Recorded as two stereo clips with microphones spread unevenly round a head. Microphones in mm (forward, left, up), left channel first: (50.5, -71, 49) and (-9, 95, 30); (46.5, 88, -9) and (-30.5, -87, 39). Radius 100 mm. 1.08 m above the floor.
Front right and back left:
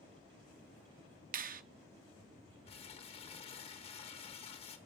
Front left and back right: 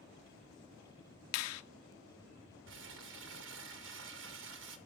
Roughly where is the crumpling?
Behind right.